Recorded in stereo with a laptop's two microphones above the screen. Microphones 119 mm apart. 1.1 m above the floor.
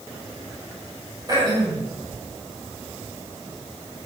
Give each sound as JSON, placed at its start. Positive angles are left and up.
{"t": 1.3, "sound": "throat clearing", "side_deg": -35, "distance_m": 7.5}